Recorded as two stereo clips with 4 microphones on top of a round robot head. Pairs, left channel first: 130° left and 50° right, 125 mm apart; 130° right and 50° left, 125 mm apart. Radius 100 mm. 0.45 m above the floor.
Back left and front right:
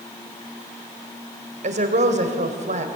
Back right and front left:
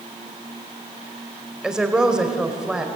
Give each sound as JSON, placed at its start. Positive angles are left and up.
{"t": 1.6, "sound": "a woman speaking", "azimuth_deg": -35, "distance_m": 2.5}